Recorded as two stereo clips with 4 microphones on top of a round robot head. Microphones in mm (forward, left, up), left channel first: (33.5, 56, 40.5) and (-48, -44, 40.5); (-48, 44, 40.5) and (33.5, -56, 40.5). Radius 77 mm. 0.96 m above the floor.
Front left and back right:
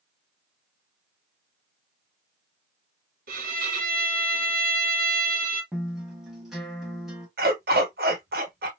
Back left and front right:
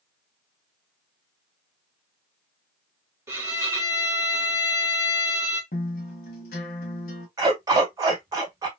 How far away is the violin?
About 2.5 m.